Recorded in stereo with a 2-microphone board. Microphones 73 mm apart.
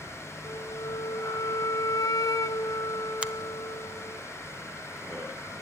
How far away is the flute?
About 0.7 m.